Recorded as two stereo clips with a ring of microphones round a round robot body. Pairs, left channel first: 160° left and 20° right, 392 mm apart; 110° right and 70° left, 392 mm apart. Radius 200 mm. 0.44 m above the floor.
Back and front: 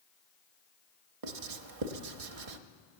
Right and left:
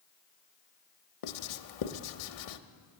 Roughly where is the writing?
Ahead right.